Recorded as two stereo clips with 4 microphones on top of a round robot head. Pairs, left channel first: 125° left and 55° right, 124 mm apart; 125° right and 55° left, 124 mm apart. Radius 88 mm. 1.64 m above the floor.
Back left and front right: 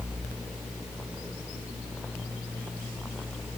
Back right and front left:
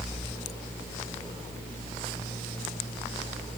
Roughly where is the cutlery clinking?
I don't hear cutlery clinking.